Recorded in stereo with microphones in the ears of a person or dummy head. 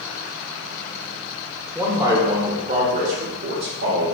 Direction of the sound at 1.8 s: 10° right (ahead or behind).